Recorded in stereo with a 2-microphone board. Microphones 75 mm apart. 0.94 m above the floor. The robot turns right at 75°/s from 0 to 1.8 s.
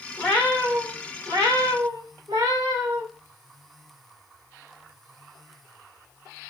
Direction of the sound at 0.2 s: 160° left.